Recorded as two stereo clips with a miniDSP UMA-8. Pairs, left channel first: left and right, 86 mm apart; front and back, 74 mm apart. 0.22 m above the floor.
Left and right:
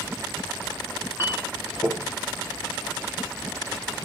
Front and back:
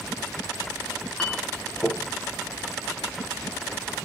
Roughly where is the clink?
Ahead left.